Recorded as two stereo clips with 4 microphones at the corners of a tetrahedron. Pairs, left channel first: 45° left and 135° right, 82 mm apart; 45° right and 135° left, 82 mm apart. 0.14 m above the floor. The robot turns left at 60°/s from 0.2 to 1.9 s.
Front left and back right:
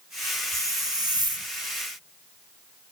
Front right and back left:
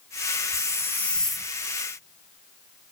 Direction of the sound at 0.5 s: 85° right.